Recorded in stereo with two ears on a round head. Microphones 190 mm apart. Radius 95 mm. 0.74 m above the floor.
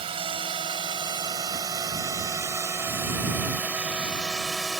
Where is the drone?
25° right (ahead or behind); by 4.8 s centre (ahead or behind).